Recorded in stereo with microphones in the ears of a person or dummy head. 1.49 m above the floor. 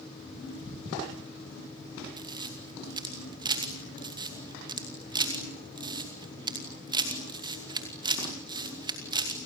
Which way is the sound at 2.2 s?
25° right (ahead or behind).